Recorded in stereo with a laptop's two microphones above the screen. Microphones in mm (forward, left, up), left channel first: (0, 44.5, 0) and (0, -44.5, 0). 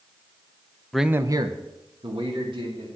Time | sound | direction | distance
0.9 | a man speaking | 5° left (ahead or behind) | 0.6 m